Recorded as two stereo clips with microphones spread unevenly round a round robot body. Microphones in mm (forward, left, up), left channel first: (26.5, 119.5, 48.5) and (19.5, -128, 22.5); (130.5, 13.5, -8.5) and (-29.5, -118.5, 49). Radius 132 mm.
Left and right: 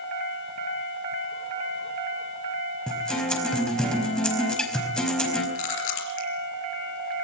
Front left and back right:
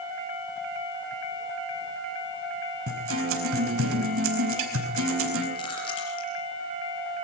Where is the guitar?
175° left, 4.5 m.